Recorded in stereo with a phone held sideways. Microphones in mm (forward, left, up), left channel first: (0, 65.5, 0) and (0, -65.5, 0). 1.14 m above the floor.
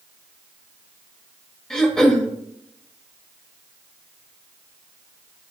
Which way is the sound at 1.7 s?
5° left (ahead or behind).